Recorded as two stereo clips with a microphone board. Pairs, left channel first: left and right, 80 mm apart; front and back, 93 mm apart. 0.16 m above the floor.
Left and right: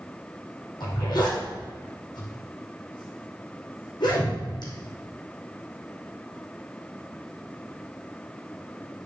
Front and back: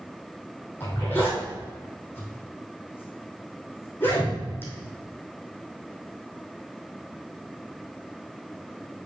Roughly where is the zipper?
Left.